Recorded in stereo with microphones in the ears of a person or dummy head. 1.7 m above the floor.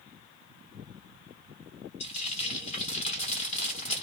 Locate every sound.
2.0 s frying: 40° left (ahead or behind), 1.1 m